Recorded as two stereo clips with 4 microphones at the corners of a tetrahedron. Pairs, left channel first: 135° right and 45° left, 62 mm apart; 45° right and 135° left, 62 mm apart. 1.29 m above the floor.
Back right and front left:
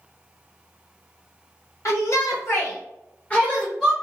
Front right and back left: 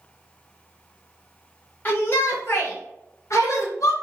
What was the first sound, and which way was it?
A shout, 100° right.